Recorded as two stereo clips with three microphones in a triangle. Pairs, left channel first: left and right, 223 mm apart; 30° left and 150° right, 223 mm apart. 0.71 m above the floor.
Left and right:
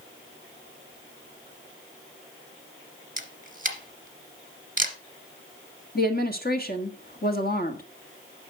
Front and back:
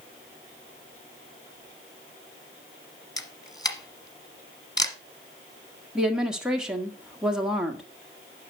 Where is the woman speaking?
125° left, 1.5 m.